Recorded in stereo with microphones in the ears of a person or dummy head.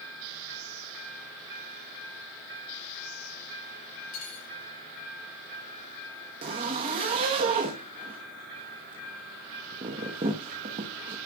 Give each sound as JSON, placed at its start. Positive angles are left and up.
{"t": 4.1, "sound": "cutlery clinking", "side_deg": 60, "distance_m": 5.0}
{"t": 6.4, "sound": "a zipper", "side_deg": -25, "distance_m": 1.0}